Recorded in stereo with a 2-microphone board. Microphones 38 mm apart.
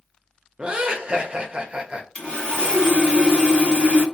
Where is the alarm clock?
No alarm clock in this recording.